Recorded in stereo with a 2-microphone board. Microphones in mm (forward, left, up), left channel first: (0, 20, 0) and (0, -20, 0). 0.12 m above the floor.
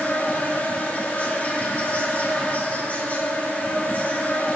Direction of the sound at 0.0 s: 45° left (ahead or behind).